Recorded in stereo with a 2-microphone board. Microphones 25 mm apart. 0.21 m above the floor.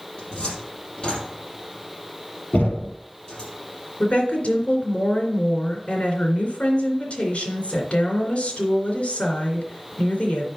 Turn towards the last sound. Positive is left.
turn(degrees=55)  # may be behind; listen again after turning